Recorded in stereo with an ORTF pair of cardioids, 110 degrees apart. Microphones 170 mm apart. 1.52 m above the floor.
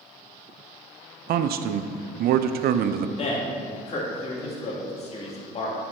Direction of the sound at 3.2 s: 40° left.